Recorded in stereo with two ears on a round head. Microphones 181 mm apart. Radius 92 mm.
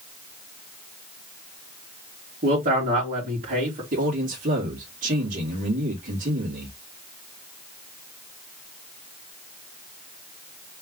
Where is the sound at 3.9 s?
45° right (ahead or behind), 2 m.